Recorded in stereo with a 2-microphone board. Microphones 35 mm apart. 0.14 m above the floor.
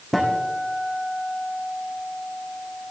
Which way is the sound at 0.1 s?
Centre (ahead or behind).